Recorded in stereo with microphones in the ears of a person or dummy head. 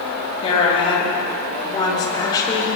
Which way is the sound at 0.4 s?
30° left (ahead or behind).